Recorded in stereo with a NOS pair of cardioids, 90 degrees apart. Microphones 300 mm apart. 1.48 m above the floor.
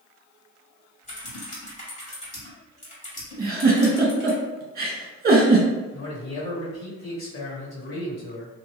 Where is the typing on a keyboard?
25° left, 1.7 m.